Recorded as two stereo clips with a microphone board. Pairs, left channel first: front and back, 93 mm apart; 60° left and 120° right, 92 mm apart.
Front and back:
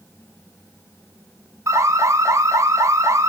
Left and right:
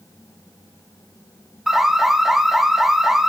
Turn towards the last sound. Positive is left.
turn(degrees=160)